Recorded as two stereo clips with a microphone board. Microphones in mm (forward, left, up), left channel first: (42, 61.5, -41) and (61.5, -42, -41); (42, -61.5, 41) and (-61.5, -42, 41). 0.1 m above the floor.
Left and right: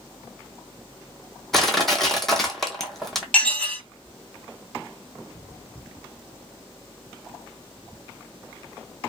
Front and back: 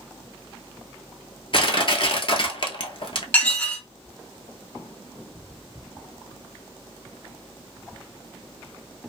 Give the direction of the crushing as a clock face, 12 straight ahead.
12 o'clock.